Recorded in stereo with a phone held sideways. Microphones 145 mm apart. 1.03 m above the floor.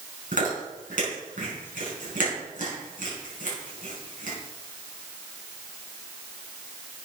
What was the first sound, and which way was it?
Chewing, 65° right (ahead or behind).